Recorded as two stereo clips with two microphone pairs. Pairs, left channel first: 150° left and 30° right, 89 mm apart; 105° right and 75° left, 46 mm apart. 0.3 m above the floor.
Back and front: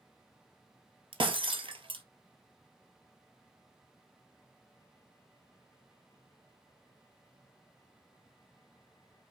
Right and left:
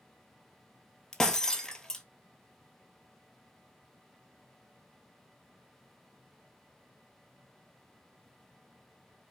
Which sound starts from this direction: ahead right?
Breaking glass, at 1.1 s.